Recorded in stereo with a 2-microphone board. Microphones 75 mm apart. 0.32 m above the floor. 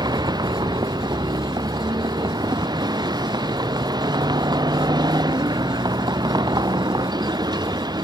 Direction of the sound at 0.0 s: 90° right.